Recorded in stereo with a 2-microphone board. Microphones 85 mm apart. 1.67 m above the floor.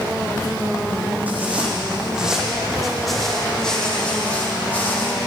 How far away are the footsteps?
About 3.5 m.